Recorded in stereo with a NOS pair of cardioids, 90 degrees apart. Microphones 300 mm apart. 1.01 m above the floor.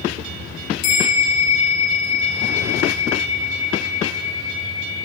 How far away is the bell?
About 0.7 m.